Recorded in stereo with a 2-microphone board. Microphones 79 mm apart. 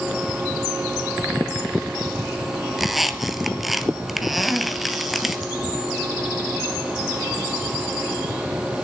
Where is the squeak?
Centre (ahead or behind), 0.6 m.